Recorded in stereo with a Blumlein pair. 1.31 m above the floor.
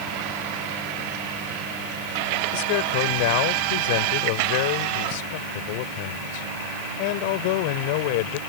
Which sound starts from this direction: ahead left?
A man speaking, at 2.5 s.